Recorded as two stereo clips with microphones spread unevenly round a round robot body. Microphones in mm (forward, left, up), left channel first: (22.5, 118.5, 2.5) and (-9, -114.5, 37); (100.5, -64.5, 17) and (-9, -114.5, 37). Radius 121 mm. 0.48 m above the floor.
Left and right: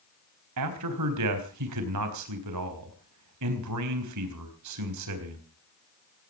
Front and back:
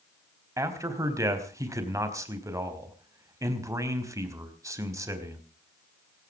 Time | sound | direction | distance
0.6 | a man speaking | 90° right | 4 m